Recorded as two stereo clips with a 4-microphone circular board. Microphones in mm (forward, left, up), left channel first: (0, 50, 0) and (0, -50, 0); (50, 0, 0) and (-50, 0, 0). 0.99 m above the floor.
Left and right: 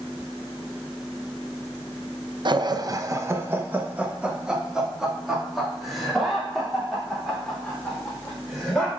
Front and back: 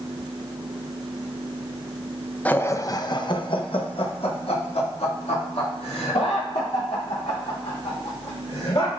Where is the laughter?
70° right, 0.6 m; by 8.9 s 5° left, 3.5 m.